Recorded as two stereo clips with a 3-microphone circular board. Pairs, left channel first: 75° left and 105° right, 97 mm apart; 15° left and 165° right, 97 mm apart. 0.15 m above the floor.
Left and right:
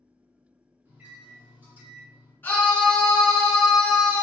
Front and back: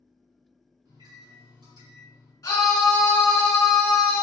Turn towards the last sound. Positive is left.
turn(degrees=20)